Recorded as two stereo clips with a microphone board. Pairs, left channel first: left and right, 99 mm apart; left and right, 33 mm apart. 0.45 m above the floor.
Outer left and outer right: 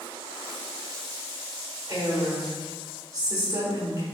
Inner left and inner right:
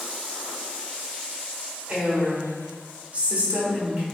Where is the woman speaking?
40° right (ahead or behind), 1.6 m.